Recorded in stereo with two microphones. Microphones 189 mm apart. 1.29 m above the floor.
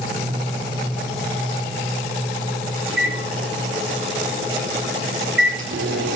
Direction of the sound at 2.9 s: 75° right (ahead or behind).